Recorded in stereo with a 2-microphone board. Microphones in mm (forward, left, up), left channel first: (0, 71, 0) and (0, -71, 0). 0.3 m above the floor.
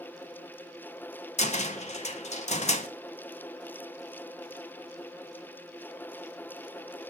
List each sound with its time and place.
1.4 s a cupboard door: 50° left (ahead or behind), 0.6 m